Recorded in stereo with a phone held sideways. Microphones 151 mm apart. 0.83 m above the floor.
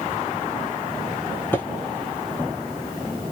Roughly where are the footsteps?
Centre.